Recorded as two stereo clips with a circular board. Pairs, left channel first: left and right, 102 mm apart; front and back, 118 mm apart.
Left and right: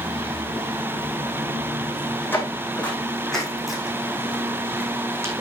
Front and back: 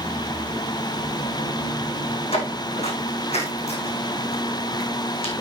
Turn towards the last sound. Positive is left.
turn(degrees=-30)